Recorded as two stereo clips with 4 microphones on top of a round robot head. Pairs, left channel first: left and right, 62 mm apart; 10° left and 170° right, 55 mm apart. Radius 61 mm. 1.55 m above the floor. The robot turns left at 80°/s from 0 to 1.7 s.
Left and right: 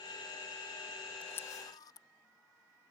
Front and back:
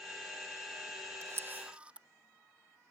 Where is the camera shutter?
160° left; by 2.1 s 120° left.